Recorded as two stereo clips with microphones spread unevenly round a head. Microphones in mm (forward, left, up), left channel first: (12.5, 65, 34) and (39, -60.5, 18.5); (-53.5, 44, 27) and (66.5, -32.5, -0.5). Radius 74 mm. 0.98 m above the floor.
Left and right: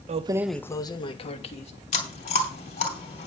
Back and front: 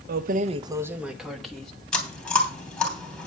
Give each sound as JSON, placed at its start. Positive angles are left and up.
{"t": 0.1, "sound": "keys jangling", "azimuth_deg": -45, "distance_m": 0.5}
{"t": 1.9, "sound": "chewing", "azimuth_deg": 65, "distance_m": 3.0}